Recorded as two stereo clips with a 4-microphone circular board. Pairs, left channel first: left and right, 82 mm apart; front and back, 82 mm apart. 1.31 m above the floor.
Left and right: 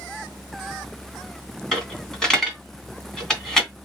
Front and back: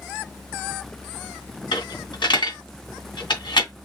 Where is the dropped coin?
5° left, 2.5 m.